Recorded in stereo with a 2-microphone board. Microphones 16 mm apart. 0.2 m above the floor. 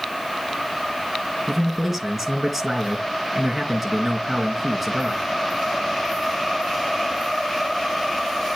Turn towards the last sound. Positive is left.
turn(degrees=-5)  # may be behind; listen again after turning